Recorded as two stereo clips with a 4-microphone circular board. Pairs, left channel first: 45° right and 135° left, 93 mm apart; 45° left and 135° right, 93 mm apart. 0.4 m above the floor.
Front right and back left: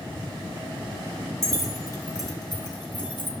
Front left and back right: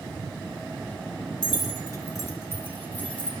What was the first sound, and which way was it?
Keys jangling, 10° left.